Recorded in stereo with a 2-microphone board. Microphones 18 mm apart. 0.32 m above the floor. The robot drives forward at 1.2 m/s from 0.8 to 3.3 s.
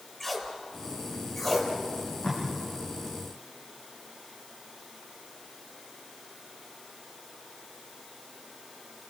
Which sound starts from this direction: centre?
Tape being pulled, at 0.2 s.